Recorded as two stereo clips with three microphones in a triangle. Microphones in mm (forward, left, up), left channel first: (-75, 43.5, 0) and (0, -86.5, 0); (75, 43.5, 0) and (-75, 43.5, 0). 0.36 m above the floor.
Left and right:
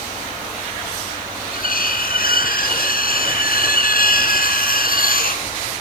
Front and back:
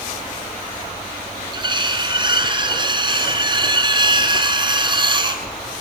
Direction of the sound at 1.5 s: 120° left.